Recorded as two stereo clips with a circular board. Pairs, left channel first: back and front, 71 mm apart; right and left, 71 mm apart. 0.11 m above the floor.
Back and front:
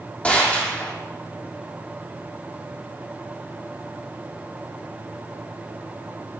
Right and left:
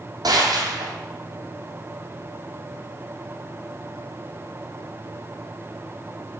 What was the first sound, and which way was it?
A gunshot, 110° left.